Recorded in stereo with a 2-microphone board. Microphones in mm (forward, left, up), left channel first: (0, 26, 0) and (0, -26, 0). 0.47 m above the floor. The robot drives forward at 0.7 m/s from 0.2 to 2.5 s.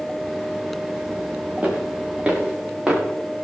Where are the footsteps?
30° right (ahead or behind), 5.5 m; by 3.0 s 20° right (ahead or behind), 5 m.